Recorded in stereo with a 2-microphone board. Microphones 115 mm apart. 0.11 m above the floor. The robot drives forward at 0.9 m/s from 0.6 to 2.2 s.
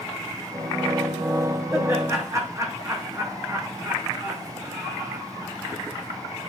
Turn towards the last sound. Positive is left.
turn(degrees=-30)  # may be behind; listen again after turning